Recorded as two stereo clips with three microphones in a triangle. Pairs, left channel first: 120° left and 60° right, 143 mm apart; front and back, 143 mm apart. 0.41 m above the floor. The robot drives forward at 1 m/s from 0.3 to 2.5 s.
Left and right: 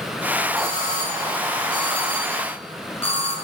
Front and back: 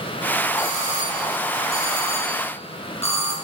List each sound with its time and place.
0.6 s a doorbell: 55° left, 6.5 m; by 3.3 s 70° left, 6 m